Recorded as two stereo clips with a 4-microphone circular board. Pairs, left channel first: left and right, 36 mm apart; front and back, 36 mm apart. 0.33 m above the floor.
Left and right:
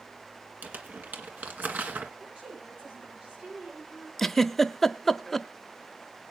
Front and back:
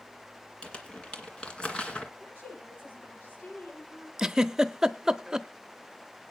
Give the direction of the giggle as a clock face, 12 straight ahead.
7 o'clock.